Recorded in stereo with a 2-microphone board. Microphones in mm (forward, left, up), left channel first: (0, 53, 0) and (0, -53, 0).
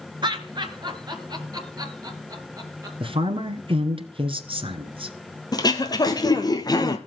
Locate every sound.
0.2 s laughter: 45° right (ahead or behind), 2.5 m; by 2.9 s 35° right (ahead or behind), 3.5 m
3.0 s a woman speaking: 60° right (ahead or behind), 1.9 m
5.5 s throat clearing: 40° left (ahead or behind), 1.6 m